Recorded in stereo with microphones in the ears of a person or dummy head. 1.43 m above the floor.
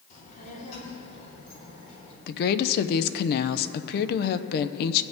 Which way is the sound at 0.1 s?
35° left (ahead or behind).